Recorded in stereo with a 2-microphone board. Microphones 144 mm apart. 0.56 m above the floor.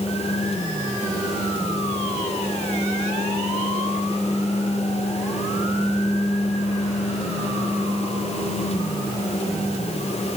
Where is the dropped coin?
No dropped coin in this recording.